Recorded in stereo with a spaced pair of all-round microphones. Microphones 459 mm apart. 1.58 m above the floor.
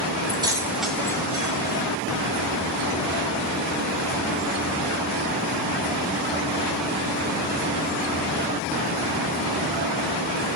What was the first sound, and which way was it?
Keys jangling, 10° right (ahead or behind).